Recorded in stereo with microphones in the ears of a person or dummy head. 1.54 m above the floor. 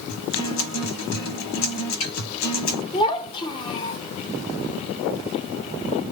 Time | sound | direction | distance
0.1 | a guitar | 75° left (ahead or behind) | 1.3 m
2.9 | a child speaking | 30° left (ahead or behind) | 1.2 m